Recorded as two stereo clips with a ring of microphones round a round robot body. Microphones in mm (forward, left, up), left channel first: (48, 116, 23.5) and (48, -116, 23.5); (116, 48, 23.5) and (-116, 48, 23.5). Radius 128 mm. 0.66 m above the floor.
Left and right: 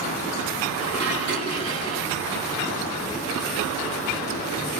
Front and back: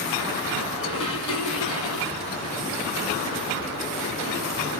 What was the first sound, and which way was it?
Dishes clattering, 70° right.